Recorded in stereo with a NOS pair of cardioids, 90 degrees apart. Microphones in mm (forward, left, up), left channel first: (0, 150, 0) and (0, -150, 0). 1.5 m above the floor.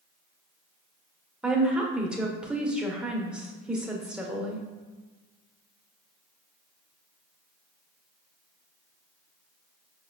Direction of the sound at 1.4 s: 5° right.